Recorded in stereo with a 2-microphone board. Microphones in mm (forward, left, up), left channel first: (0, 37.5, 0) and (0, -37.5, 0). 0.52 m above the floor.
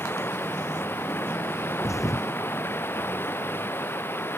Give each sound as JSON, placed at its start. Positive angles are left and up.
{"t": 0.0, "sound": "running water", "side_deg": 30}
{"t": 1.8, "sound": "a thud", "side_deg": 45}